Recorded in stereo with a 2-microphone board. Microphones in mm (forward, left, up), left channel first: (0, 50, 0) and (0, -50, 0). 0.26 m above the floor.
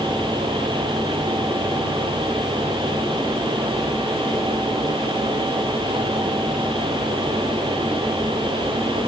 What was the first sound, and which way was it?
Only background noise.